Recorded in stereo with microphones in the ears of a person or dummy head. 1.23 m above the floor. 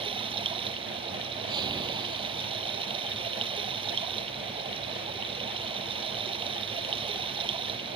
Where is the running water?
25° right (ahead or behind).